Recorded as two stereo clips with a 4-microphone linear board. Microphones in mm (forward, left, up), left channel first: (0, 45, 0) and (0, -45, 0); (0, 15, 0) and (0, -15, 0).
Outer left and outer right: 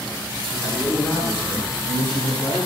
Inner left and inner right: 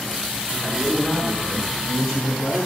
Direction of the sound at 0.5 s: 5° left (ahead or behind).